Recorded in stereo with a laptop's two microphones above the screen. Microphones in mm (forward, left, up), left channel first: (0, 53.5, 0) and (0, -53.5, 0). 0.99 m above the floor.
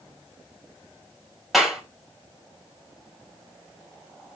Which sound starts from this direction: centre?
A clap, at 1.5 s.